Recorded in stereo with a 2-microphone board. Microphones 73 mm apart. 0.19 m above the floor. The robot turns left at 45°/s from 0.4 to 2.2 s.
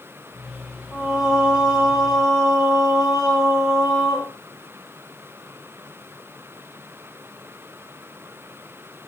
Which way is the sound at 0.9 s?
10° left.